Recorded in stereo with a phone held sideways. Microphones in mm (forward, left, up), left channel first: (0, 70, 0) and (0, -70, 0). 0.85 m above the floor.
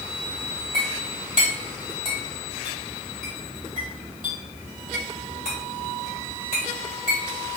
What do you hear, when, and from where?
0.7 s a clink: 70° right (ahead or behind), 1.9 m